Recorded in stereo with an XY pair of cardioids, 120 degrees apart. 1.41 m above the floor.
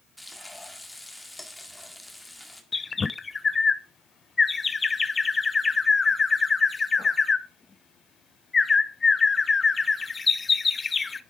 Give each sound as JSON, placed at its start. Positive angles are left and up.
{"t": 0.2, "sound": "frying", "azimuth_deg": 10, "distance_m": 2.0}
{"t": 2.7, "sound": "a bird", "azimuth_deg": 25, "distance_m": 0.7}